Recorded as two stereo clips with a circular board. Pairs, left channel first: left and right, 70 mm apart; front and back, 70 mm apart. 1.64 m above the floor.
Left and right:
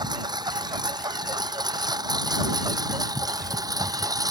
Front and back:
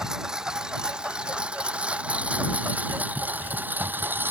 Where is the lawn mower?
100° right; by 4.3 s 120° right.